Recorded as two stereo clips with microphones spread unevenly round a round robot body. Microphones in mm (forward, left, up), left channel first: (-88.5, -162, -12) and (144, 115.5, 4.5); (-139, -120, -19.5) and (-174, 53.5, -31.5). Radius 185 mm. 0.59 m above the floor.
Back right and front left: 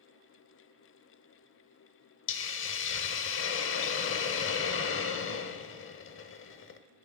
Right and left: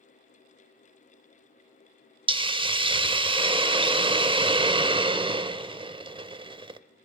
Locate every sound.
2.3 s a hiss: 170° left, 0.6 m